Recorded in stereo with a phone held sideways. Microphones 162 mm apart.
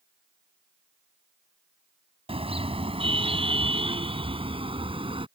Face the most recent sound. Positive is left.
turn(degrees=-35)  # may be behind; listen again after turning